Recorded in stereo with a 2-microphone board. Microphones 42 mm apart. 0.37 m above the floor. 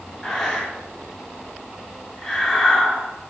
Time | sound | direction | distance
0.2 | breathing | 15° left (ahead or behind) | 0.5 m